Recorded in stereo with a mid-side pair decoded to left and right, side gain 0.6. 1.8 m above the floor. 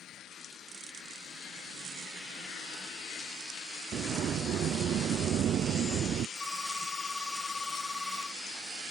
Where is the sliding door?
50° right.